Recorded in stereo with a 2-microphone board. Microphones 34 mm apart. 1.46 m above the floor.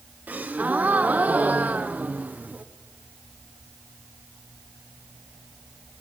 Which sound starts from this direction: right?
A gasp, at 0.3 s.